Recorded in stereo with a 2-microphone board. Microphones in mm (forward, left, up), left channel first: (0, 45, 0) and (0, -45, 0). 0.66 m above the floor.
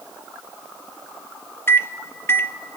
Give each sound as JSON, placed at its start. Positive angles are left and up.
{"t": 1.7, "sound": "a microwave", "side_deg": 25, "distance_m": 0.6}